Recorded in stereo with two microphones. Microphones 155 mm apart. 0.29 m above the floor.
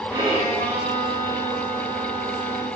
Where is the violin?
30° right (ahead or behind), 4.5 m.